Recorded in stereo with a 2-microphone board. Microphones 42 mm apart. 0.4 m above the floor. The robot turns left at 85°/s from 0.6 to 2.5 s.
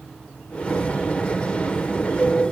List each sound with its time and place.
Only background noise.